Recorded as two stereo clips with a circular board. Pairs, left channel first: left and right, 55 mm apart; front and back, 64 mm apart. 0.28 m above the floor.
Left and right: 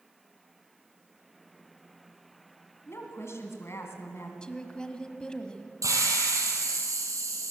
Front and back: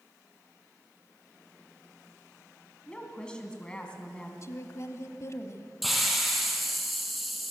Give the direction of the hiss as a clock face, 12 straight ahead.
3 o'clock.